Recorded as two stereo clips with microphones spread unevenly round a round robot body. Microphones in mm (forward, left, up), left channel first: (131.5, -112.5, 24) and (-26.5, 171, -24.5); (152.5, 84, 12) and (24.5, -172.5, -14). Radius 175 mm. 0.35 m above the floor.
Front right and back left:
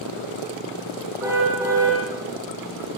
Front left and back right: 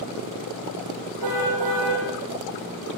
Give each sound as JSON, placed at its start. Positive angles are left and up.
{"t": 1.2, "sound": "a car horn", "azimuth_deg": -160, "distance_m": 5.5}